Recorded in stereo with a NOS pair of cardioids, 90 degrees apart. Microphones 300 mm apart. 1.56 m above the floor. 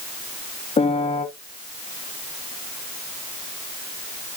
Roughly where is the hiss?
I don't hear a hiss.